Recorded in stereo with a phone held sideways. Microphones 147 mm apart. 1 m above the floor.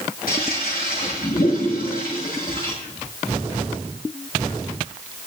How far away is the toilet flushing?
About 8 m.